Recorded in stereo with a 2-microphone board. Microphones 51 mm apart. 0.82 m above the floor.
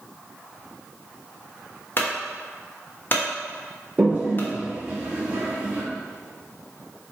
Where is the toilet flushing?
25° right (ahead or behind), 1.4 m.